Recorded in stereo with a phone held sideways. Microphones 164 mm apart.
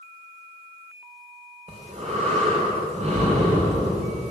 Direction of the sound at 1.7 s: 45° right (ahead or behind).